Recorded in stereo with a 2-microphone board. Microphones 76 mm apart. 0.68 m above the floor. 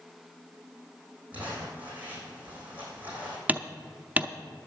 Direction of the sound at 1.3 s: 20° right (ahead or behind).